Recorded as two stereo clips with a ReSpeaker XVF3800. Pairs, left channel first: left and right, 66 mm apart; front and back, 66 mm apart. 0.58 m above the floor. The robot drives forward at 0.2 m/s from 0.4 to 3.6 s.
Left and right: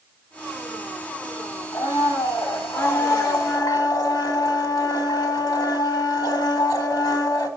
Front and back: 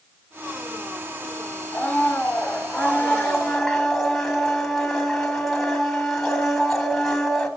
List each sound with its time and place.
1.7 s a blender: 75° left, 1.5 m; by 7.5 s 85° left, 1.5 m